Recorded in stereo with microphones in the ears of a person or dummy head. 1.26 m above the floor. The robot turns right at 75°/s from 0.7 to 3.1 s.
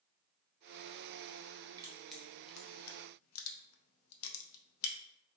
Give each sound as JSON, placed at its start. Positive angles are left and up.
{"t": 1.8, "sound": "crushing", "side_deg": -20, "distance_m": 0.6}